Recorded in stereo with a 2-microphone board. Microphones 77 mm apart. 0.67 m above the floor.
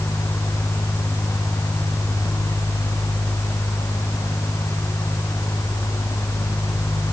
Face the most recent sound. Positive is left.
No sound to turn to.